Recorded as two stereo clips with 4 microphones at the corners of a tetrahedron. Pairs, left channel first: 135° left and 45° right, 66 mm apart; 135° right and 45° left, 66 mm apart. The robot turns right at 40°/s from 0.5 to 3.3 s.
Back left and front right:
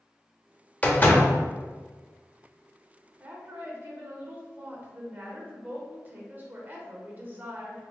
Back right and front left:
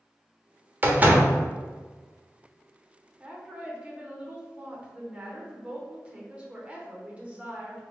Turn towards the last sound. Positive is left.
turn(degrees=-10)